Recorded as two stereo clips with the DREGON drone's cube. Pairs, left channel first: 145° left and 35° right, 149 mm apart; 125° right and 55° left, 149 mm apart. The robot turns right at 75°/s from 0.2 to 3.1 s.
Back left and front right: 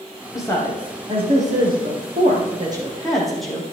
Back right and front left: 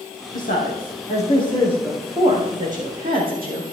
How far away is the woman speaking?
About 4.5 m.